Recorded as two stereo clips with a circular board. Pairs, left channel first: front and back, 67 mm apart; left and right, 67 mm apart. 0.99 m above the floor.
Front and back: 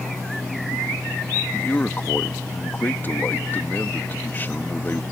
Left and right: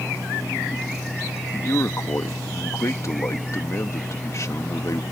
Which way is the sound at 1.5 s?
55° left.